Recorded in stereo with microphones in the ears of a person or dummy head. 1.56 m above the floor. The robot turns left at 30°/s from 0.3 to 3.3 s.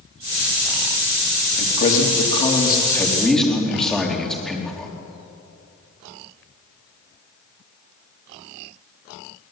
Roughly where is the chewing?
No chewing in this recording.